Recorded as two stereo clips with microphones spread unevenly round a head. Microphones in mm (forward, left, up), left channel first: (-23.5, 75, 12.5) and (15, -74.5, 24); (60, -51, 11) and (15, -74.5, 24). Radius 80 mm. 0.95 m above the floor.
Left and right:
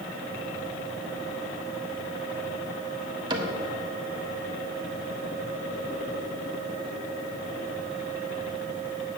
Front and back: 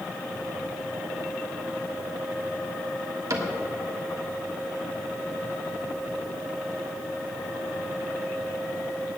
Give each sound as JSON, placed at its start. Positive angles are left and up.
{"t": 3.3, "sound": "a cupboard door", "azimuth_deg": -140, "distance_m": 1.4}